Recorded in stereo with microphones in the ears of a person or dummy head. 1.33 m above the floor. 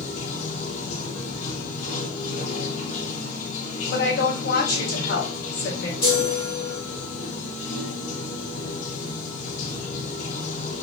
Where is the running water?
45° left (ahead or behind), 0.9 m.